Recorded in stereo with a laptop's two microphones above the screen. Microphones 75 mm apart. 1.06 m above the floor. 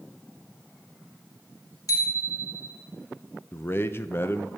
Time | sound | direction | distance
1.9 | a bicycle bell | 65° left (ahead or behind) | 3 m
3.5 | a man speaking | 35° left (ahead or behind) | 0.8 m